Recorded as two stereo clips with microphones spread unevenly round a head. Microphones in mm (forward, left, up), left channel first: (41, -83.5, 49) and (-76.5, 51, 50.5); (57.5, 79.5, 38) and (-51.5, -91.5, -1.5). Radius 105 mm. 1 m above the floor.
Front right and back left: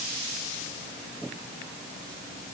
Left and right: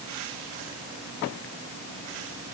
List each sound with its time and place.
Only background noise.